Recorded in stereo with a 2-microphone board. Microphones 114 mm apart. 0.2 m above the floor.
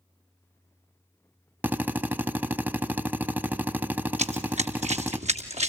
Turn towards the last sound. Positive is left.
turn(degrees=-75)  # may be behind; listen again after turning